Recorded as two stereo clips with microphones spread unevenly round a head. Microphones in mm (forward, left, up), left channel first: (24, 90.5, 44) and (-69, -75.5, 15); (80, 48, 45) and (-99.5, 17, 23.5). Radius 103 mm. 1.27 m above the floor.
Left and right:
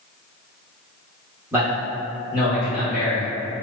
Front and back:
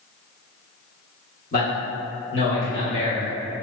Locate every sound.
1.5 s a man speaking: 45° right, 1.1 m; by 3.2 s 15° left, 1.2 m